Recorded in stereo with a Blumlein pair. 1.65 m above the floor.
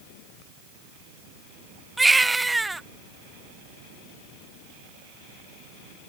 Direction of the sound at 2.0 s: 5° right.